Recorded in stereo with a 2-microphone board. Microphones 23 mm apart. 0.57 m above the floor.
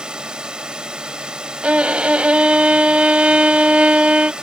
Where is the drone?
35° right (ahead or behind).